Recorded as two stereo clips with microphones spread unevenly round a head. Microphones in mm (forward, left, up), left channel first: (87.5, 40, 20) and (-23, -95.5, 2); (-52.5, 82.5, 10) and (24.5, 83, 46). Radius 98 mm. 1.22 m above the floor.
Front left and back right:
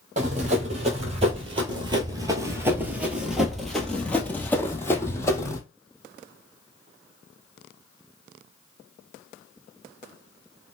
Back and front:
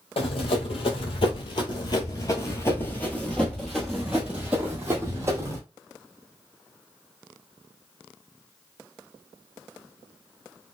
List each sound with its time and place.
0.2 s running footsteps: 175° right, 1.7 m; by 5.6 s 10° right, 1.9 m